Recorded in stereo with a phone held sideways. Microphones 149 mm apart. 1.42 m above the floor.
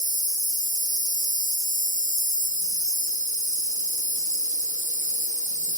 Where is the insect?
60° right (ahead or behind), 2.0 m.